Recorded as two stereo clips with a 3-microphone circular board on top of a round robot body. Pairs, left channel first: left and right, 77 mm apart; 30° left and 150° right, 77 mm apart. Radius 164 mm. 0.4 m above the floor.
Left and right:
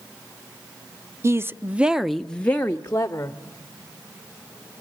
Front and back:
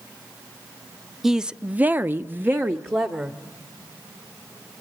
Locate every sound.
1.2 s a woman speaking: 65° right, 1.0 m; by 3.4 s 150° left, 1.8 m